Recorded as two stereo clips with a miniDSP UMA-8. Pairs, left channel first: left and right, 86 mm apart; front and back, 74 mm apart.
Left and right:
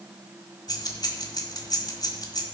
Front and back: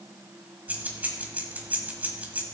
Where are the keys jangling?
115° left, 1.5 m.